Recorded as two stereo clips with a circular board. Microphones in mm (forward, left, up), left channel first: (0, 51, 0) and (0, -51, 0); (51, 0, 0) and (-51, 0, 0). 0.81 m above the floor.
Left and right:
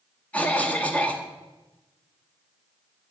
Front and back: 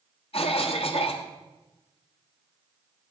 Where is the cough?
15° left, 0.9 m.